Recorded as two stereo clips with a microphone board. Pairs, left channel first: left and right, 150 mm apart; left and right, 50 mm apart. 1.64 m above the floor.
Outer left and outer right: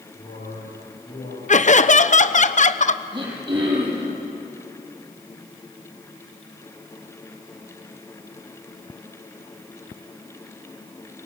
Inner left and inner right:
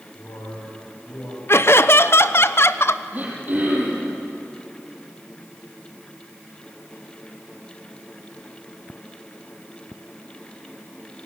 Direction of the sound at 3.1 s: 30° right (ahead or behind).